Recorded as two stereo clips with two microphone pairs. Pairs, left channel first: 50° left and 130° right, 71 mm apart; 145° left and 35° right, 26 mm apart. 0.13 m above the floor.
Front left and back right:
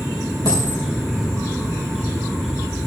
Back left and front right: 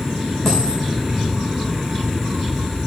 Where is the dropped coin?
70° left, 4.5 m.